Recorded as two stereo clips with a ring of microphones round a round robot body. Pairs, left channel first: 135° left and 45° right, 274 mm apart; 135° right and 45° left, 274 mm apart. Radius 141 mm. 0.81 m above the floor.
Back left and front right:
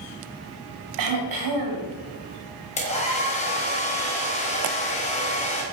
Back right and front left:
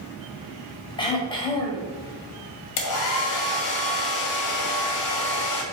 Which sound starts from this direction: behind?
A hair dryer, at 2.8 s.